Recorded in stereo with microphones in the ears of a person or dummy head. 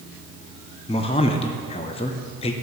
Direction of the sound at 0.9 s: 30° left (ahead or behind).